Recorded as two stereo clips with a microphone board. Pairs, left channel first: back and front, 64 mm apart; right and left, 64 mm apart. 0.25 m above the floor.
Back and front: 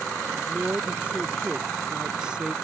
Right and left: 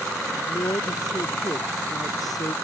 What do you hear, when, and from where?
0.3 s a woman speaking: 65° right; by 2.5 s 80° right